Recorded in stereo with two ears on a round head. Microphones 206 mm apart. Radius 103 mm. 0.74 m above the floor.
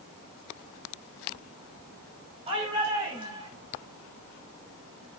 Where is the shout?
25° right (ahead or behind), 5 m; by 3.5 s 20° right (ahead or behind), 6 m.